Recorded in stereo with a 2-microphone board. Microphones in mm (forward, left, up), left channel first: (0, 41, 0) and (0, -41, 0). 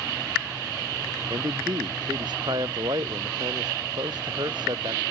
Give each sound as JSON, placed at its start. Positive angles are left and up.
{"t": 1.3, "sound": "a man speaking", "side_deg": -60}